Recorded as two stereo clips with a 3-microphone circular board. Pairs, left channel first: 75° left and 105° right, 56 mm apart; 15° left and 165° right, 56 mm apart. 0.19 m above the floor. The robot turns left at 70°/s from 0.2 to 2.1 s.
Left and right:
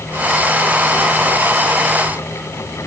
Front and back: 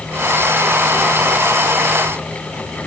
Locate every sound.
Only background noise.